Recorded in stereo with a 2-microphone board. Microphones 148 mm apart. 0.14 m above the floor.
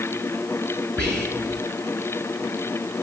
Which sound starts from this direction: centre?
Whispering, at 1.0 s.